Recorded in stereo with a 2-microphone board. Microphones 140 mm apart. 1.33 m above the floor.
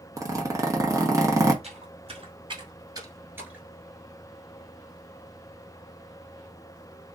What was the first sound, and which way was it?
A zipper, 25° right (ahead or behind).